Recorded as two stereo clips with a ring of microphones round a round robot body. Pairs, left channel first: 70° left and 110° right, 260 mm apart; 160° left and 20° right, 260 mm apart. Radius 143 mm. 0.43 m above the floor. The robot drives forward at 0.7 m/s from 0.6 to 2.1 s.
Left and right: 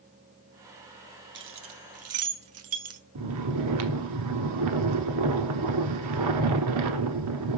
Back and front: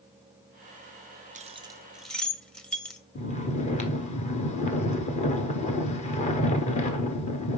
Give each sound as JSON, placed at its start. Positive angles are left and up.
{"t": 1.4, "sound": "keys jangling", "azimuth_deg": -80, "distance_m": 1.0}
{"t": 3.1, "sound": "snoring", "azimuth_deg": -135, "distance_m": 1.0}